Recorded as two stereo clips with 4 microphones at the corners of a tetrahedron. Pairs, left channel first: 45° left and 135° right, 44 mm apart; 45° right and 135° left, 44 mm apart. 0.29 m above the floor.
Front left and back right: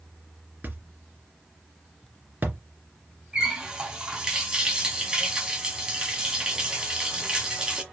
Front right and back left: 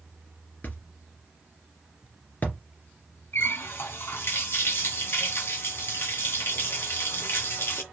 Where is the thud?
90° right, 2.5 m.